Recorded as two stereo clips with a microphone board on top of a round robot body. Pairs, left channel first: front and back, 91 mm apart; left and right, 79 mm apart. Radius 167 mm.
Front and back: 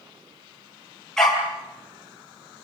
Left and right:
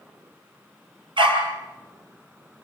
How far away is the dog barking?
About 5 m.